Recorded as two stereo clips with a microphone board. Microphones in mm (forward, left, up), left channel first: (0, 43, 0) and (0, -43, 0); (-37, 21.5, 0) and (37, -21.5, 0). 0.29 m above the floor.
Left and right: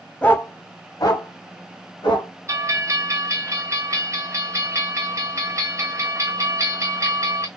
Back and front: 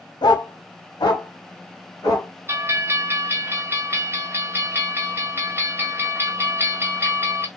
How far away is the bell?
About 0.7 m.